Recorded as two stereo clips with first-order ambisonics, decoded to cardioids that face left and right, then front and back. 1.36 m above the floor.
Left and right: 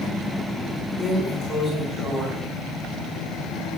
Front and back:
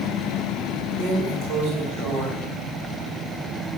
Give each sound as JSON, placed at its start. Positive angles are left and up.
{"t": 1.0, "sound": "a drawer", "azimuth_deg": 155, "distance_m": 3.0}